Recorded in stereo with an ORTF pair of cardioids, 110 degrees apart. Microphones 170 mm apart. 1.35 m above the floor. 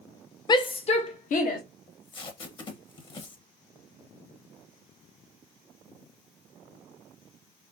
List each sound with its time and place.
0.5 s a shout: 25° left, 0.8 m; by 1.6 s 60° left, 1.1 m
1.9 s tape being pulled: 30° left, 1.1 m